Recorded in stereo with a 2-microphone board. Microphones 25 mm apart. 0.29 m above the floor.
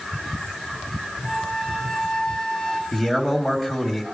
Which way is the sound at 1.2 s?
40° left (ahead or behind).